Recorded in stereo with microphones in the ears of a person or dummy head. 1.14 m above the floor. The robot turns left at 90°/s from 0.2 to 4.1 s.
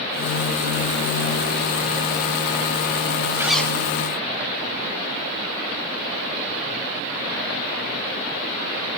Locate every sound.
3.4 s a zipper: 165° right, 0.6 m; by 3.8 s 160° left, 0.6 m